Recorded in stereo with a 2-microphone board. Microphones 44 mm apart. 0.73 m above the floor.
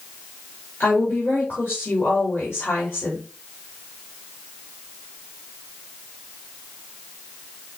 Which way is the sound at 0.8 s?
60° left (ahead or behind).